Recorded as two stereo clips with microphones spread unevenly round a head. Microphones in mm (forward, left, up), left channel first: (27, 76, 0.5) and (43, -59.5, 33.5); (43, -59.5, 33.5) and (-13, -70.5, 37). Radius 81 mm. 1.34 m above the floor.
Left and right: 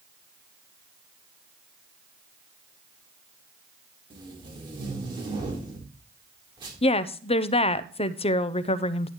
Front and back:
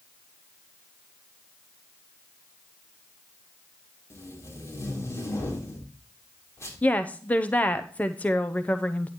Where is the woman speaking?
75° left, 0.6 m.